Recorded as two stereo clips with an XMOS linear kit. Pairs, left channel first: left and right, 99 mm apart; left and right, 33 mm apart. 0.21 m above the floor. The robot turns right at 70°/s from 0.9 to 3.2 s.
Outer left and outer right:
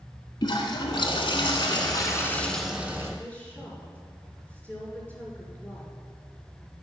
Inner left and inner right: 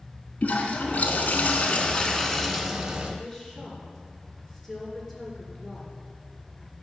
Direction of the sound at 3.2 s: 15° left (ahead or behind).